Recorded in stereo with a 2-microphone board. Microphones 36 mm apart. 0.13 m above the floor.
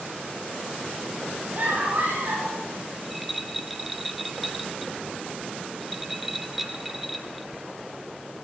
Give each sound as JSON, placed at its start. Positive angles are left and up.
{"t": 1.6, "sound": "a scream", "side_deg": -50, "distance_m": 6.5}
{"t": 3.0, "sound": "a rattle", "side_deg": 0, "distance_m": 0.8}